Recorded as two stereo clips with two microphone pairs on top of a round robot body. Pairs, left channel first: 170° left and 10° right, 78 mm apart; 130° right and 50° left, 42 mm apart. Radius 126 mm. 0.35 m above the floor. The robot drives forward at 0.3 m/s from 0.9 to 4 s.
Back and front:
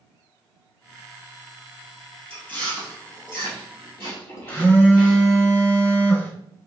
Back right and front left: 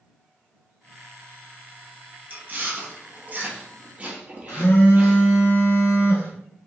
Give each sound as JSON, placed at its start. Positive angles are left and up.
{"t": 2.3, "sound": "chewing", "azimuth_deg": 95, "distance_m": 1.8}
{"t": 4.5, "sound": "a phone buzzing", "azimuth_deg": -125, "distance_m": 1.0}